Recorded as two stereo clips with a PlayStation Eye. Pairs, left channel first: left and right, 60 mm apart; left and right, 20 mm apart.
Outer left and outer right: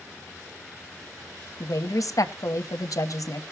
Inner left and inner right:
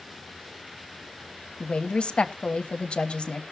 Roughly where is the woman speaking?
Left.